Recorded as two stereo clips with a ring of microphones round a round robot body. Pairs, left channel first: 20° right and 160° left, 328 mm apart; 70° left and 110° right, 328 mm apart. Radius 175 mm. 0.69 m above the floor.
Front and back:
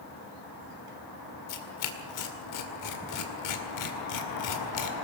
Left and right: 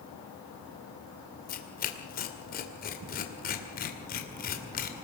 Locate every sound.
1.5 s tearing paper: 5° left, 2 m